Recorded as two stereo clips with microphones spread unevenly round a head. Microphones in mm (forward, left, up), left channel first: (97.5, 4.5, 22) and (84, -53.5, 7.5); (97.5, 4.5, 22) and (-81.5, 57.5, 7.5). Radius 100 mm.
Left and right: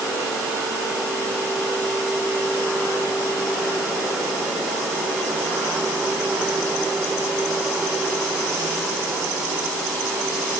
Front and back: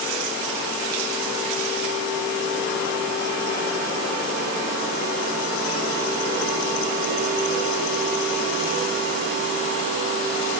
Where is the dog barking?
No dog barking in this recording.